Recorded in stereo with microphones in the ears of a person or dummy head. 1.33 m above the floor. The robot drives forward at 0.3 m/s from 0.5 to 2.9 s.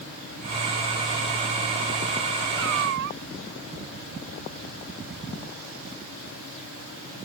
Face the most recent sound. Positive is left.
turn(degrees=-60)  # may be behind; listen again after turning